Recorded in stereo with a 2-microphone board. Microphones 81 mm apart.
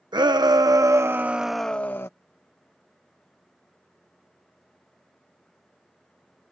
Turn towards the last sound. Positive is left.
turn(degrees=30)  # may be behind; listen again after turning